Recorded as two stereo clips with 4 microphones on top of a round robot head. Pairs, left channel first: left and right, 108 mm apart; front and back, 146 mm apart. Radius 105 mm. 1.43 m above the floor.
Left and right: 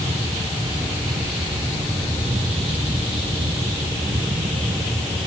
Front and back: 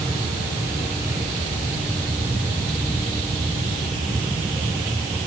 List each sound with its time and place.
Only background noise.